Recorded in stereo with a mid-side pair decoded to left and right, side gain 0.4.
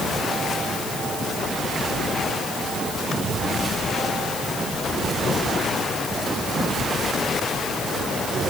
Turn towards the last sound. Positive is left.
No sound to turn to.